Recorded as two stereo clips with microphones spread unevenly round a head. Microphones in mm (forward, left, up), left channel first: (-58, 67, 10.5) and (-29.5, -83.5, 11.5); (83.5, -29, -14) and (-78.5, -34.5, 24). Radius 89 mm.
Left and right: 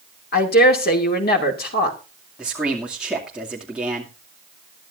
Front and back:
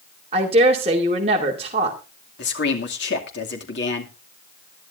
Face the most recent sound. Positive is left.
turn(degrees=5)